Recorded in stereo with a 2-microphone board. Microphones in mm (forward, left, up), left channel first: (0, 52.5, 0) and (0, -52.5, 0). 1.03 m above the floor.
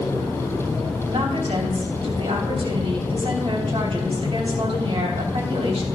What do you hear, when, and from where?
1.1 s a woman speaking: 70° right (ahead or behind), 3.5 m